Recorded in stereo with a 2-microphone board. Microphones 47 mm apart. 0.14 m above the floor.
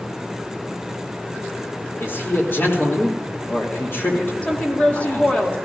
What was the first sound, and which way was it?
A man speaking, 55° left (ahead or behind).